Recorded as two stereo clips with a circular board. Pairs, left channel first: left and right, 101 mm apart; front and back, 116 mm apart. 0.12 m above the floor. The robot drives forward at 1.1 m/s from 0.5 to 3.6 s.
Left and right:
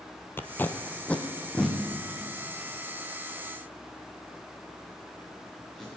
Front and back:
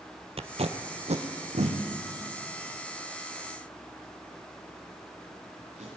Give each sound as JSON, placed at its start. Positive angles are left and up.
{"t": 0.4, "sound": "tape being pulled", "azimuth_deg": 155, "distance_m": 0.9}